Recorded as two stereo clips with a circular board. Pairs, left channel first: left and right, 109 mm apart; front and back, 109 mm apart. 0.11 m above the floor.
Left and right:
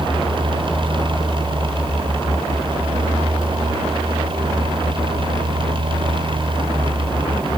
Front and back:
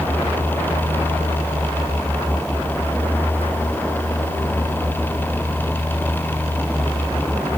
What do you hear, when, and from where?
Only background noise.